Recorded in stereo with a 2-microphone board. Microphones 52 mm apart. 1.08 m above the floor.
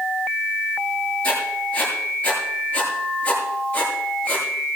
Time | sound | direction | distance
1.2 | writing | 25° left (ahead or behind) | 7 m